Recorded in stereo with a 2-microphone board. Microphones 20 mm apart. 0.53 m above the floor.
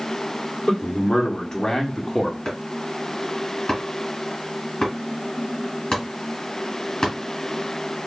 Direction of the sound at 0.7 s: 50° left (ahead or behind).